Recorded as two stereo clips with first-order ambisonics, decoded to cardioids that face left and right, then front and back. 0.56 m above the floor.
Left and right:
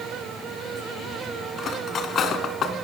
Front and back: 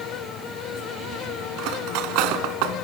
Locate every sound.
1.6 s cutlery clinking: 155° left, 3 m